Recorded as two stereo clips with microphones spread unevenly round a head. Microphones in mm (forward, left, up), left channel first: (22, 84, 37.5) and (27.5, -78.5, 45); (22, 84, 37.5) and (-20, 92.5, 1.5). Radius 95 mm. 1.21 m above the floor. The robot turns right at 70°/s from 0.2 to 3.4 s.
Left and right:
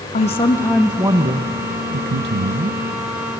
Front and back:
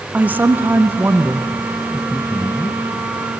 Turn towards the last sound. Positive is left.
turn(degrees=0)